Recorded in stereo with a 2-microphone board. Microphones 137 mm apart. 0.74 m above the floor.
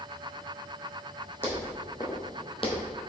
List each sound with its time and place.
1.4 s footsteps: 15° left (ahead or behind), 2.5 m; by 2.8 s 50° left (ahead or behind), 1.4 m